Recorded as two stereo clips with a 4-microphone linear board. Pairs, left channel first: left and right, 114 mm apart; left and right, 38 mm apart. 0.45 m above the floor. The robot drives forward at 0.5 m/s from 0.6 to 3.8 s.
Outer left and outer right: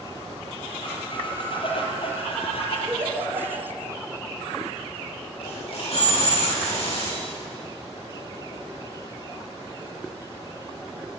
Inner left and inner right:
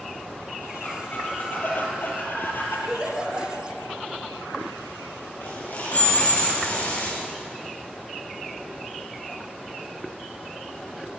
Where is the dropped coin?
55° left (ahead or behind), 9.5 m.